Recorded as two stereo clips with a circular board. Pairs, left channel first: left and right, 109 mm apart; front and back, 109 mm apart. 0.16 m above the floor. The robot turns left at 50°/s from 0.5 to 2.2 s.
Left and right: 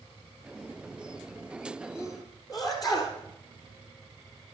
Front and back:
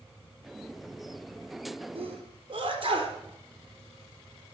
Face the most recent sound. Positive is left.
turn(degrees=145)